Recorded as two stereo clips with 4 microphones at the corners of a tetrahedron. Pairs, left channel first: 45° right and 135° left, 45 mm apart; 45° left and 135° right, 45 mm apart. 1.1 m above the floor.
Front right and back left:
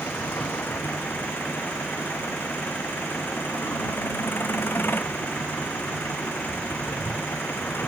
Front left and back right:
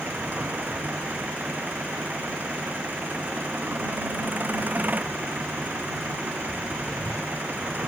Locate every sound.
0.0 s an engine running: 85° right